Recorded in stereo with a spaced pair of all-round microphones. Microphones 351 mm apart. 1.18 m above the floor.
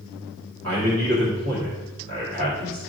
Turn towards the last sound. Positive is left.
turn(degrees=-40)  # may be behind; listen again after turning